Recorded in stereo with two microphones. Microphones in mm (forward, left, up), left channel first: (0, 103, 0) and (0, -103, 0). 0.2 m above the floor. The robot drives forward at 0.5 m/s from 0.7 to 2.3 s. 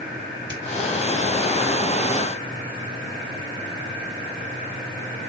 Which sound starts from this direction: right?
A finger snap, at 0.5 s.